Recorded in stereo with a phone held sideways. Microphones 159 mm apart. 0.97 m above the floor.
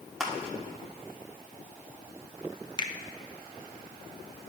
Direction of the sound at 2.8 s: 30° left (ahead or behind).